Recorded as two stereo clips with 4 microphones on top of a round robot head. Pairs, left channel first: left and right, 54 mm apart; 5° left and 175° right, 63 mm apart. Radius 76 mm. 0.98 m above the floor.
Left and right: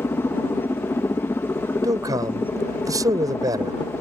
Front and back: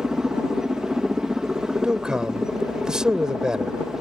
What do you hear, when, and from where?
0.0 s a helicopter: 105° left
1.8 s a man speaking: 95° right